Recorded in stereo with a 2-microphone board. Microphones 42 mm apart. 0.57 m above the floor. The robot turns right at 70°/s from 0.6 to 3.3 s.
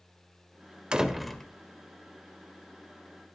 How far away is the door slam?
About 1.8 m.